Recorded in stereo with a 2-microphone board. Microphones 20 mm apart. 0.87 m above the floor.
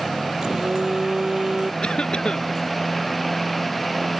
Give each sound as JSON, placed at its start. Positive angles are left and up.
{"t": 0.4, "sound": "a phone buzzing", "side_deg": -45}
{"t": 1.8, "sound": "a cough", "side_deg": 50}